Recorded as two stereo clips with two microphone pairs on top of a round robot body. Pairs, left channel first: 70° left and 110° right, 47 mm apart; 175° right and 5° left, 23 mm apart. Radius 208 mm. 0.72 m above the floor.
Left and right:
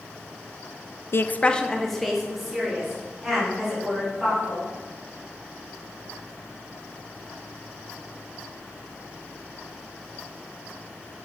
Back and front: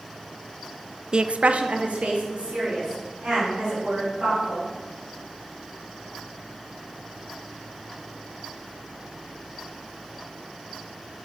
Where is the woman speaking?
45° left, 0.5 m; by 4.7 s 30° right, 4.5 m.